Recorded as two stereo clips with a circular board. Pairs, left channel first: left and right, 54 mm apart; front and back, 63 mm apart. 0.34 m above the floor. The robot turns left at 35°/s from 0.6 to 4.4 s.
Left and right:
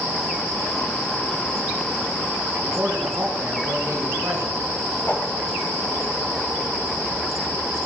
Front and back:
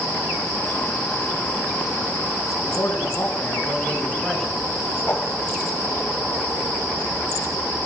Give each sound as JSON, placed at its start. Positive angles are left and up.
{"t": 2.6, "sound": "a man speaking", "azimuth_deg": -30, "distance_m": 2.5}
{"t": 5.0, "sound": "a whoosh", "azimuth_deg": 50, "distance_m": 7.5}